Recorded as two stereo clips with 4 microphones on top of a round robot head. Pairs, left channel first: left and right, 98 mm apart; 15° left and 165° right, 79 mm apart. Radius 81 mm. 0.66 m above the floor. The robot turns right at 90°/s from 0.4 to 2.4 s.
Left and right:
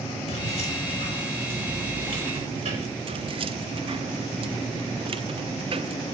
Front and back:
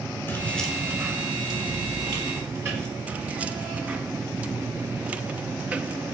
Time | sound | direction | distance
0.3 | keys jangling | 75° left | 6.5 m
3.1 | keys jangling | 95° right | 0.9 m